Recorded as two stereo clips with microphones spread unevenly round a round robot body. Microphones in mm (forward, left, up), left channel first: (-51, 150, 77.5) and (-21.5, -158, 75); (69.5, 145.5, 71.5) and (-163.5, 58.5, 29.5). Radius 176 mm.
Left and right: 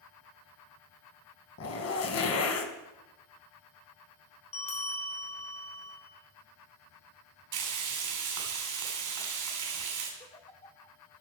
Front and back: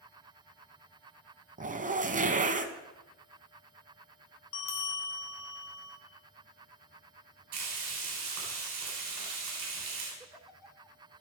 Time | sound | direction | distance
1.6 | a zipper | 140° left | 1.2 m
4.5 | a bell | 25° left | 2.5 m
7.5 | frying | 105° right | 3 m
10.2 | a giggle | 135° left | 1.3 m